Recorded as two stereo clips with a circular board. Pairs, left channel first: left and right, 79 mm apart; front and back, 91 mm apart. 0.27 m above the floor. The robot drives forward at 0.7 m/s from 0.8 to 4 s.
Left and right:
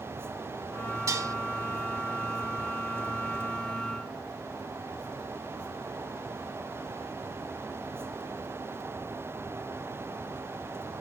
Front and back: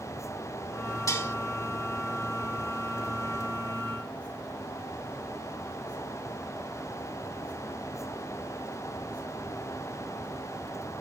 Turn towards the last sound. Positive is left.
turn(degrees=-145)